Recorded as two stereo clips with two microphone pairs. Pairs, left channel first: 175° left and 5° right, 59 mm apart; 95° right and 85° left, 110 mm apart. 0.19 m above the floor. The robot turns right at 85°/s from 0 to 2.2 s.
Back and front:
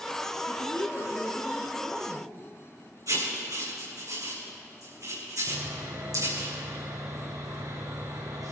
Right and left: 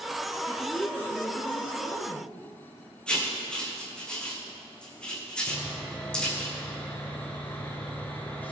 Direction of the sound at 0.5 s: 155° left.